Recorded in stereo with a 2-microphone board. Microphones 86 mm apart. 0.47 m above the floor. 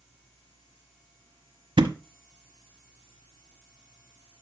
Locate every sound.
1.8 s a thud: 75° right (ahead or behind), 0.9 m